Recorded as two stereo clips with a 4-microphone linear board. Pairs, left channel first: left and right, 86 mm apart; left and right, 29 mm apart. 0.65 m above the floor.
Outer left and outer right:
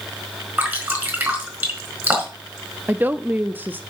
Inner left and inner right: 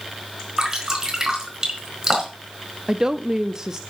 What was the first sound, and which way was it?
Dripping, 25° right (ahead or behind).